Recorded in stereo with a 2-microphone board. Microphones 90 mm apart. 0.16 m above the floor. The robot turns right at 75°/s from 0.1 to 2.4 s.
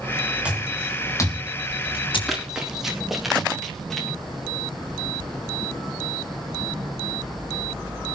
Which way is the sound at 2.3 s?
Centre (ahead or behind).